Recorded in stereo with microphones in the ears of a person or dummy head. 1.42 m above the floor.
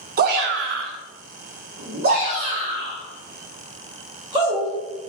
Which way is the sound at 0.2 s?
40° right (ahead or behind).